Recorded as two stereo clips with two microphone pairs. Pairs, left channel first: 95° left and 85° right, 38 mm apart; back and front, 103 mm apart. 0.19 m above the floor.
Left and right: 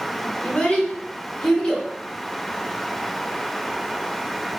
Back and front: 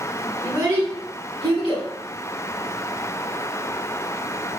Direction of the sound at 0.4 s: 40° left.